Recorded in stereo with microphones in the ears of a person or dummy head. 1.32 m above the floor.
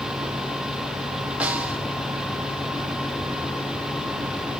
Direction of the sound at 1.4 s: 5° right (ahead or behind).